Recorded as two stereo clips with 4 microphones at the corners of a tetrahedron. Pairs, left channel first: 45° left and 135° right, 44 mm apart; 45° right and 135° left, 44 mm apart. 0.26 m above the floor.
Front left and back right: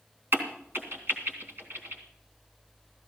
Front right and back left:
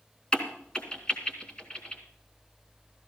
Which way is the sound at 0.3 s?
115° right.